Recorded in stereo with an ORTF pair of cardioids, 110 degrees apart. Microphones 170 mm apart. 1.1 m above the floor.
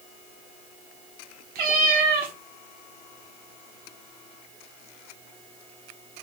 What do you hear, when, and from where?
1.6 s a cat meowing: 60° right, 1.6 m